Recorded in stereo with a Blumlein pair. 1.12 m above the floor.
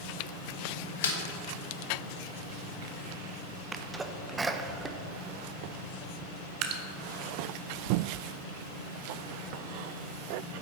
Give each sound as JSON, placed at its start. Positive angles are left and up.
{"t": 1.0, "sound": "a snare drum", "azimuth_deg": 60, "distance_m": 1.2}
{"t": 3.7, "sound": "a sneeze", "azimuth_deg": -15, "distance_m": 0.6}
{"t": 6.6, "sound": "dripping", "azimuth_deg": -40, "distance_m": 0.8}